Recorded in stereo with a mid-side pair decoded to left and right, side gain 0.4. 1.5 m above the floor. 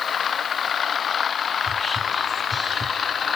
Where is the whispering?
35° left, 1.5 m.